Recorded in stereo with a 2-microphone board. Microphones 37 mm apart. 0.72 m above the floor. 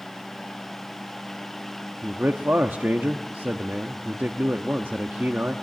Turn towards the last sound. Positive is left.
turn(degrees=-55)  # may be behind; listen again after turning